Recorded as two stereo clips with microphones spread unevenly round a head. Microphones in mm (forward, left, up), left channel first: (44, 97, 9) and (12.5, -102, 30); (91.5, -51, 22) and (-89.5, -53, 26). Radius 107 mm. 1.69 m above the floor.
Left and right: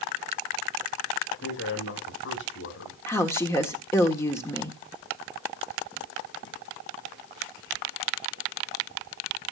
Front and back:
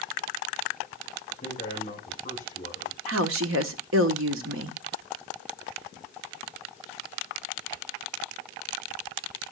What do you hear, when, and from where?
1.4 s a man speaking: 60° left, 6.5 m
3.1 s a woman speaking: 160° left, 1.3 m